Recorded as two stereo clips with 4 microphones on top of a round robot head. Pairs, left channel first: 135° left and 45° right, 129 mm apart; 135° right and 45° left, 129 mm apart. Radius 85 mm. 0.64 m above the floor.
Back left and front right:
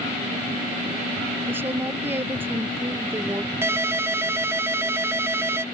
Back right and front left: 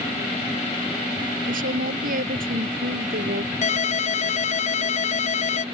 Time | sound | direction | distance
1.5 | a woman speaking | 30° left | ?
3.6 | a ringtone | 115° right | ?